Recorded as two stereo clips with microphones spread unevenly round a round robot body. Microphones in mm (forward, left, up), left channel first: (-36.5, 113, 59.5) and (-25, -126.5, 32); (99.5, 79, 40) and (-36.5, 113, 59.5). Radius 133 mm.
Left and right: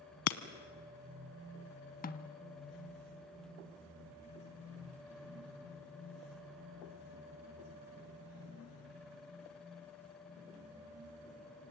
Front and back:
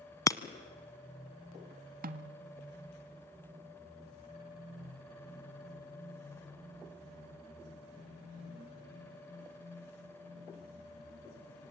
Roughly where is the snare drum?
Behind left.